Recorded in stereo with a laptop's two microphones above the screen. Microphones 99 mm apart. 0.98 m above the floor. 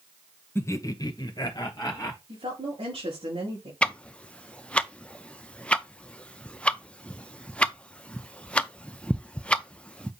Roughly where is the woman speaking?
Right.